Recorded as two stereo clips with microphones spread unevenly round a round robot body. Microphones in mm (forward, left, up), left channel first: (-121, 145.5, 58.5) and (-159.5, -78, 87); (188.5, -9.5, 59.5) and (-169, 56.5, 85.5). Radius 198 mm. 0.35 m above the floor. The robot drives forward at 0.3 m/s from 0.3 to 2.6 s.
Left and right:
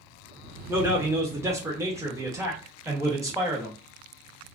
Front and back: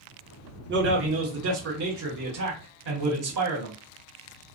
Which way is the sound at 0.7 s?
Straight behind.